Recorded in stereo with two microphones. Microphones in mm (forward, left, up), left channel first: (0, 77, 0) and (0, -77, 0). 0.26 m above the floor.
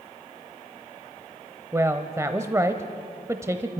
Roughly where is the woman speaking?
Centre.